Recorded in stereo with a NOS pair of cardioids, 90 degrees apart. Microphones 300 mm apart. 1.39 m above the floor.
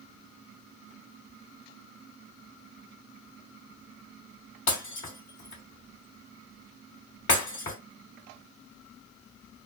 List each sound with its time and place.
4.7 s breaking glass: 40° left, 2 m